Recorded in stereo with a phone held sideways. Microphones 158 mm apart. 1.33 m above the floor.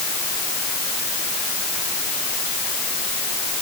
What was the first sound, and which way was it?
Only background noise.